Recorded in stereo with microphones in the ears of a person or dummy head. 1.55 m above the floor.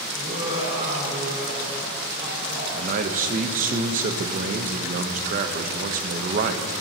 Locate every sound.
0.1 s laughter: 45° right (ahead or behind), 4 m
2.7 s a man speaking: 45° right (ahead or behind), 0.7 m